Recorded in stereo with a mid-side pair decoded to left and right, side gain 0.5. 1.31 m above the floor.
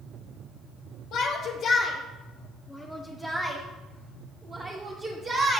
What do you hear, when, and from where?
1.1 s a shout: 65° left, 1.0 m; by 5.6 s 40° right, 2.0 m